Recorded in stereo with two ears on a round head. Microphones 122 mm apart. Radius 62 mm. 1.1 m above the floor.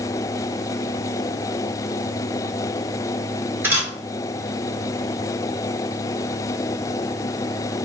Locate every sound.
3.6 s a camera shutter: 15° right (ahead or behind), 1.7 m